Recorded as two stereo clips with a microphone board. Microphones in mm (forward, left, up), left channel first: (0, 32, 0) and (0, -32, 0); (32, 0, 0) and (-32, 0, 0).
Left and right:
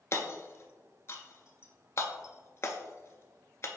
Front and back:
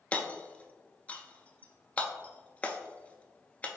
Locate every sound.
0.1 s hammering: 60° left, 0.5 m